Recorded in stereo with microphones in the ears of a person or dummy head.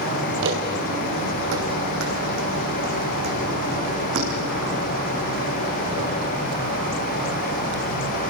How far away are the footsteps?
About 3 m.